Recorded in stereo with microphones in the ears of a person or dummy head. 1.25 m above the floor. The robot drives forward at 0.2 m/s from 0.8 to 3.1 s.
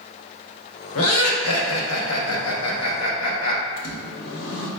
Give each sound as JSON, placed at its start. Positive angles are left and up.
{"t": 0.9, "sound": "laughter", "side_deg": 75, "distance_m": 0.9}
{"t": 3.8, "sound": "a microwave", "side_deg": 60, "distance_m": 0.7}